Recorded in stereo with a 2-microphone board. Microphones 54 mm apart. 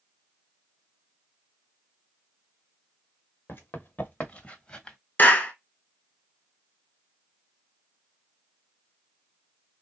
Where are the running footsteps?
45° left (ahead or behind), 1.5 m; by 5.0 s 15° left (ahead or behind), 1.3 m.